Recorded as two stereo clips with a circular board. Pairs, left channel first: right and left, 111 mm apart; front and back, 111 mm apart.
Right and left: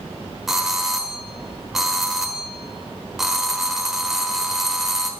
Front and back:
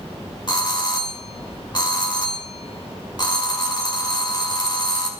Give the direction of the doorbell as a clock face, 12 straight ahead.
12 o'clock.